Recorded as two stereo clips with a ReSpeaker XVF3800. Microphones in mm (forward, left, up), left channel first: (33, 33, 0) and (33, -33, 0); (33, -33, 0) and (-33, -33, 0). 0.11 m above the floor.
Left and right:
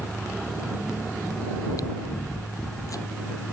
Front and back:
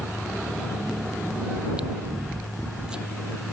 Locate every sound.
1.6 s chewing: 105° left